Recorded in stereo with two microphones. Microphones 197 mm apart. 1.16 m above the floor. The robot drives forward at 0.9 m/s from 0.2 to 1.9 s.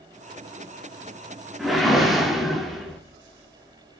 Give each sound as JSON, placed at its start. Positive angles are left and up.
{"t": 1.6, "sound": "a whoosh", "side_deg": 0, "distance_m": 2.5}